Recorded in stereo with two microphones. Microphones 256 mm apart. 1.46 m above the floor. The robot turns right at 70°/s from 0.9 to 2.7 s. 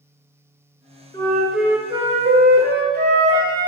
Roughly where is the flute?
Behind left.